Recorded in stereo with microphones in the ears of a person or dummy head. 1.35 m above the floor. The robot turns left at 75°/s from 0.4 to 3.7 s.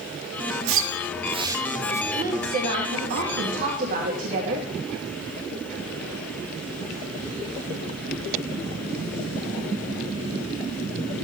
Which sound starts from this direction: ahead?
A woman speaking, at 2.1 s.